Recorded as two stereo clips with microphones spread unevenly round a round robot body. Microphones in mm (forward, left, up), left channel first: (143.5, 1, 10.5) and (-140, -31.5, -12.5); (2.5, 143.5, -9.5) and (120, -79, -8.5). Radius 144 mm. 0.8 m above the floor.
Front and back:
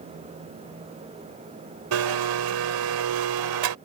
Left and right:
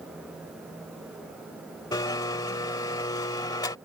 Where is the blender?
165° right.